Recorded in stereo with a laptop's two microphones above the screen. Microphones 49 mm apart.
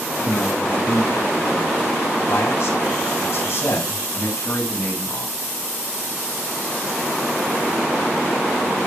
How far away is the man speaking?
About 6.5 m.